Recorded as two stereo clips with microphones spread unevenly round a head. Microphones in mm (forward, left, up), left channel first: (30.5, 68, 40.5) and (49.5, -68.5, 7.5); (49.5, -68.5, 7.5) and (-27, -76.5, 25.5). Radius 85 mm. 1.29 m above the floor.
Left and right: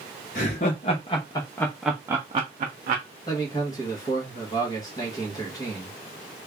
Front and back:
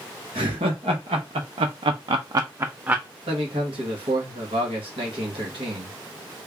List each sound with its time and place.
0.3 s laughter: 145° left, 1.1 m; by 3.0 s 100° right, 0.7 m
3.3 s a man speaking: 165° left, 1.0 m